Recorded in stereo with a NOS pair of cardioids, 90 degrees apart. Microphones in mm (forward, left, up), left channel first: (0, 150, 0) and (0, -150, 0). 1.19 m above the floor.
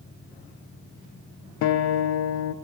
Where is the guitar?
65° left, 0.6 m.